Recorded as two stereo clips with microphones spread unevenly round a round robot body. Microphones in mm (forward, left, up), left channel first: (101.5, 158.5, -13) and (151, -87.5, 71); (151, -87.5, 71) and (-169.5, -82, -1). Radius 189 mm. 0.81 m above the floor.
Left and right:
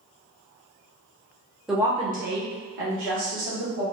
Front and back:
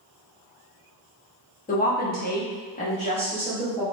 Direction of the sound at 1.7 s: 60° left.